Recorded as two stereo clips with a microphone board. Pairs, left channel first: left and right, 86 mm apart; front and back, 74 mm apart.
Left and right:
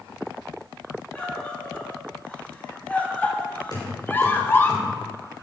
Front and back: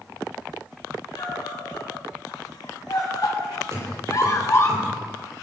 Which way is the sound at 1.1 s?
15° left.